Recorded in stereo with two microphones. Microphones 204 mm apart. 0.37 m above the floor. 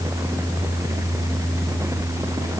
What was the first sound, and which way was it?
Only background noise.